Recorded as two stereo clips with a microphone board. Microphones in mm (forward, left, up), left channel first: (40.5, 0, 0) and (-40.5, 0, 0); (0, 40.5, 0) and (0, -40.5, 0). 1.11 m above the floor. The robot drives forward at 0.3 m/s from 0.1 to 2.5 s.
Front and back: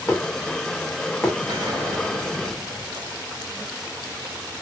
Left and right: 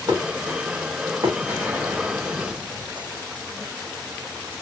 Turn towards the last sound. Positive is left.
turn(degrees=-160)